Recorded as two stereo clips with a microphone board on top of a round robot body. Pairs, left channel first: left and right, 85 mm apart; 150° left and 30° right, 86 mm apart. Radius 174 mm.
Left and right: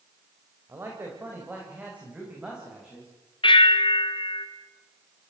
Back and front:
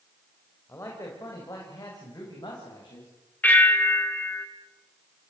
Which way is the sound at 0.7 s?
150° right.